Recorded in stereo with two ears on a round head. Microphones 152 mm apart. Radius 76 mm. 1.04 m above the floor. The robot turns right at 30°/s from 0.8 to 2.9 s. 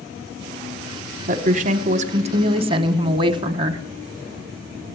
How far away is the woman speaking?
About 0.9 m.